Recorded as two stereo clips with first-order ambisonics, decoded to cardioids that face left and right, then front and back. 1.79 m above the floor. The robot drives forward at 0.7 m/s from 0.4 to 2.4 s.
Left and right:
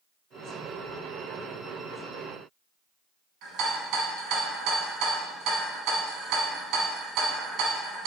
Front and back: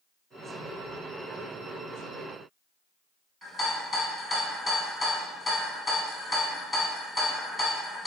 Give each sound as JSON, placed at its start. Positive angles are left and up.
{"t": 3.4, "sound": "a rattle", "azimuth_deg": -90, "distance_m": 1.0}